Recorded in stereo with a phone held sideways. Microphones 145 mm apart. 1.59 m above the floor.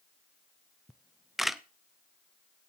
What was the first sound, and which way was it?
A camera shutter, centre (ahead or behind).